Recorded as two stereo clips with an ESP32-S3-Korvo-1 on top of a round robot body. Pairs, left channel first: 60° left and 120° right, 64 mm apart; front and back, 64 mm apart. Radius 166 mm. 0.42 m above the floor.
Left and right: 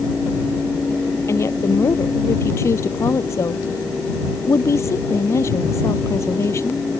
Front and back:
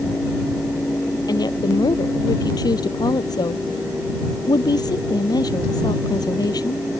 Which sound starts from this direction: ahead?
A woman speaking, at 1.3 s.